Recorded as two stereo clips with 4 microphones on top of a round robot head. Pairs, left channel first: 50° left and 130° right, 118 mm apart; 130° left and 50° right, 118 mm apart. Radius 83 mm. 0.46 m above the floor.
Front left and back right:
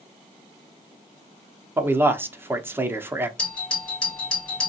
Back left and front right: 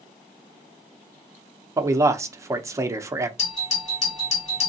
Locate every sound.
1.8 s a man speaking: 80° right, 0.8 m
3.4 s a doorbell: 130° left, 3 m